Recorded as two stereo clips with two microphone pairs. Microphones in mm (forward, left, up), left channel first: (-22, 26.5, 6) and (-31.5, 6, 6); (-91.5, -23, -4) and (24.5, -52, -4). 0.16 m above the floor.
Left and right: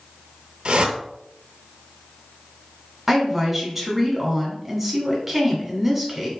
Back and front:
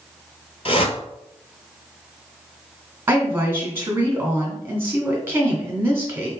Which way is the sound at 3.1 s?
50° right.